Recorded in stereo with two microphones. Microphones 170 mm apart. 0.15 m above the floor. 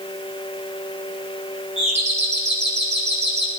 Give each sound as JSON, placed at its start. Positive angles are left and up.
{"t": 1.8, "sound": "a doorbell", "side_deg": -40, "distance_m": 8.0}